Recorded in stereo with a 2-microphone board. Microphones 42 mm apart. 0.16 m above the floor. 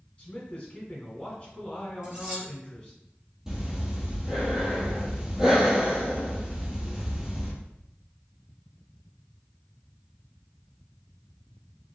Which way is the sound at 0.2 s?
20° left (ahead or behind).